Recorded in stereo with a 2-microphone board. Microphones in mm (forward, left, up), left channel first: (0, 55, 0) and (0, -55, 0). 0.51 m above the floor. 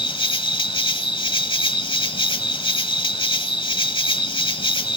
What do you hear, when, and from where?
0.0 s an insect: 50° left (ahead or behind), 1.0 m